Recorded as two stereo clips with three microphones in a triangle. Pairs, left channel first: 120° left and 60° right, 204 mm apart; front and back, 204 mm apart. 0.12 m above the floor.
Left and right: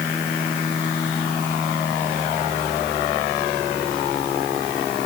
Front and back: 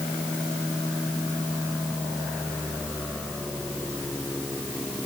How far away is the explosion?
I don't hear an explosion.